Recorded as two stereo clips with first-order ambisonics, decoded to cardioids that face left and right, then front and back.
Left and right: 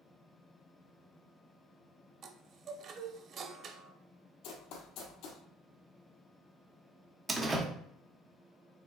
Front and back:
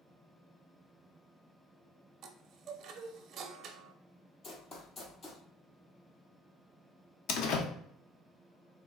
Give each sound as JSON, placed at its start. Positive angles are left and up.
{"t": 2.2, "sound": "a chime", "azimuth_deg": -135, "distance_m": 0.6}
{"t": 4.4, "sound": "running footsteps", "azimuth_deg": 60, "distance_m": 1.3}
{"t": 7.3, "sound": "a door slam", "azimuth_deg": -15, "distance_m": 0.8}